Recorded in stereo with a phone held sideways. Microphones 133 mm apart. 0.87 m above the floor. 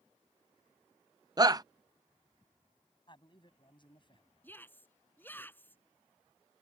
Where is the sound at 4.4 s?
15° left (ahead or behind).